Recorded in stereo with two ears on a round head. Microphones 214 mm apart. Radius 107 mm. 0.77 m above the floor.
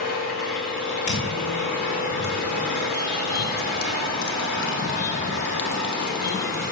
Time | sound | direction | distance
0.0 | an engine running | 40° left (ahead or behind) | 6 m
1.1 | footsteps | 55° left (ahead or behind) | 4 m